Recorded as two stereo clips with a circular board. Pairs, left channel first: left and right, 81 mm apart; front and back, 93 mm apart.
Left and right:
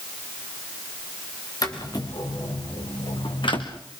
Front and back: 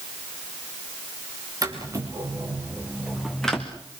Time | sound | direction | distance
1.6 | footsteps | 130° left | 4 m